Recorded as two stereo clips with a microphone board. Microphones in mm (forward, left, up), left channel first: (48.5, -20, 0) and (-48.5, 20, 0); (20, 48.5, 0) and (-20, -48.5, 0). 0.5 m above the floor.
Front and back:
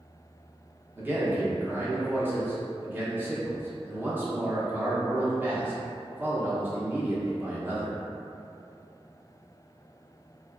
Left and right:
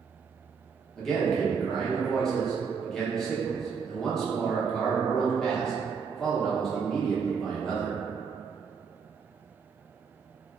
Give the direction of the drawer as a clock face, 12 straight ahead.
No drawer in this recording.